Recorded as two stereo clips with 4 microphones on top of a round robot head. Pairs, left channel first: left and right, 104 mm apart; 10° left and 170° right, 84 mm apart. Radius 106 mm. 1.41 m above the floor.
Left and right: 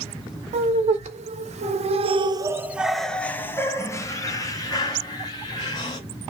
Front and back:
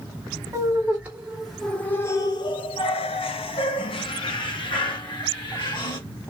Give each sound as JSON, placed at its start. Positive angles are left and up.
{"t": 0.5, "sound": "laughter", "azimuth_deg": -100, "distance_m": 1.1}